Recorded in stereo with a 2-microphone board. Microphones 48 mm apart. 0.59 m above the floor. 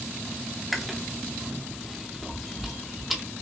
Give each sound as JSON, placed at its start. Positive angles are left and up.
{"t": 0.7, "sound": "chewing", "side_deg": -5, "distance_m": 0.9}